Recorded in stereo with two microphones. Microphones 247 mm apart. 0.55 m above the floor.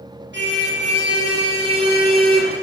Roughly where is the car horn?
Right.